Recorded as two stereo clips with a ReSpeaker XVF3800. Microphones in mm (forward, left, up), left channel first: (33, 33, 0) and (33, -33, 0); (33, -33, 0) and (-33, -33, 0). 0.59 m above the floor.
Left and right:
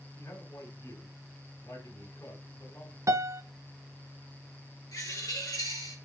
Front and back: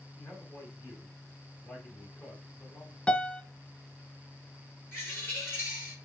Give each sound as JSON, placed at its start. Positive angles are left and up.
{"t": 0.2, "sound": "a man speaking", "azimuth_deg": 55, "distance_m": 4.0}
{"t": 3.1, "sound": "a piano", "azimuth_deg": -70, "distance_m": 0.5}
{"t": 4.9, "sound": "a bird", "azimuth_deg": 55, "distance_m": 5.0}